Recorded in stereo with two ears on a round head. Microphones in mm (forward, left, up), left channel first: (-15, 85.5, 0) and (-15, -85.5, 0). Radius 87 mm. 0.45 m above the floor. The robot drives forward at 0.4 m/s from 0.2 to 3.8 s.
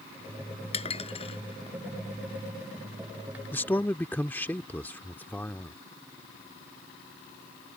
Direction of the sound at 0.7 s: 35° left (ahead or behind).